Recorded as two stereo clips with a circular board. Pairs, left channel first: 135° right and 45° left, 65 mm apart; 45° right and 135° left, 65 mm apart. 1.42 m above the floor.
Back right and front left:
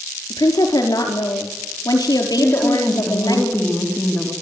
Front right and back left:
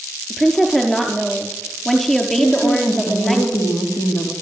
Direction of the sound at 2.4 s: 65° right.